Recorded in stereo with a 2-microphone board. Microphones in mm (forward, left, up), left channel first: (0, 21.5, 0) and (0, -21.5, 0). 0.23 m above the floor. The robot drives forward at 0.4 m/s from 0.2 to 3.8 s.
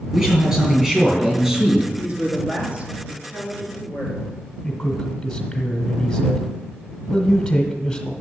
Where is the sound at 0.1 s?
20° right (ahead or behind), 5 m.